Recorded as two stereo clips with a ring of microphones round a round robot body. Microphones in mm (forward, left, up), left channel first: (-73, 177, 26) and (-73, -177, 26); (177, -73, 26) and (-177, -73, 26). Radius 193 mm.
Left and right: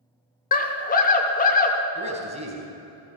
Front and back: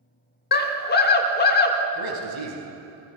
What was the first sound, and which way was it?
A scream, 40° left.